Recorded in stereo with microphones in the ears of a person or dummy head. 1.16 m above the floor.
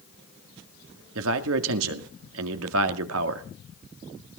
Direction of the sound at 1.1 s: 80° right.